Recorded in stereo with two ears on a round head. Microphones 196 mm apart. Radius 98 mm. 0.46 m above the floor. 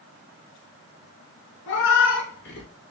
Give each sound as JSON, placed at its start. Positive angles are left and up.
{"t": 1.7, "sound": "a cat meowing", "side_deg": 60, "distance_m": 1.1}